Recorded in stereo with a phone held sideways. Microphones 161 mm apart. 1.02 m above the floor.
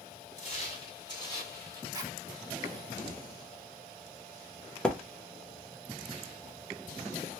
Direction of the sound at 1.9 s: 25° right (ahead or behind).